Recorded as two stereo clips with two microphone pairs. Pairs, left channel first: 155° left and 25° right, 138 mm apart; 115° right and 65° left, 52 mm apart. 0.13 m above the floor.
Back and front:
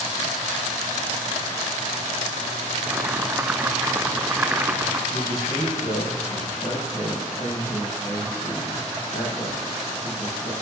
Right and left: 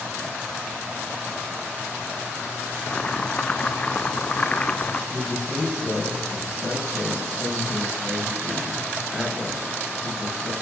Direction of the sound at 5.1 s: 175° right.